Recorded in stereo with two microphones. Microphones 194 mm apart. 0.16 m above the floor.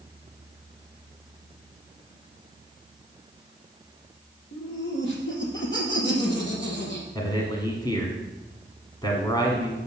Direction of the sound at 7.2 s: 20° left (ahead or behind).